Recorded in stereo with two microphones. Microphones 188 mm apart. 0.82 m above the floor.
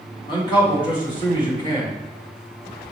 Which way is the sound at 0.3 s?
25° left (ahead or behind).